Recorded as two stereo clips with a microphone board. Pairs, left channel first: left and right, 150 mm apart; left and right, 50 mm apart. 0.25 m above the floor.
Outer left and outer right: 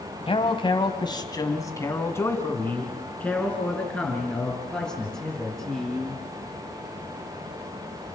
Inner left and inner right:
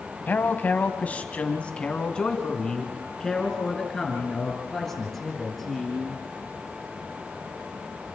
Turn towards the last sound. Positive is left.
turn(degrees=0)  # may be behind; listen again after turning